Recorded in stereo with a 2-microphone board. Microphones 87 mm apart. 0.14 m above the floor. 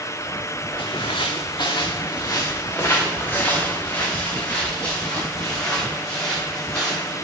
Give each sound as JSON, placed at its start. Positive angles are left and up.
{"t": 0.8, "sound": "footsteps", "side_deg": 85, "distance_m": 0.7}